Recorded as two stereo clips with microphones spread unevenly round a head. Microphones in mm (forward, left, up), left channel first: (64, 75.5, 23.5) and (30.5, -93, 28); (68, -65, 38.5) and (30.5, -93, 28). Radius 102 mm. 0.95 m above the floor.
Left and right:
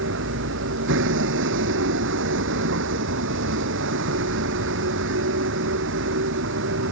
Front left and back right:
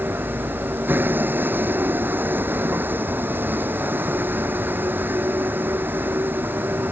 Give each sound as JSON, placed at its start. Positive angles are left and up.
{"t": 0.0, "sound": "a vehicle", "azimuth_deg": -100}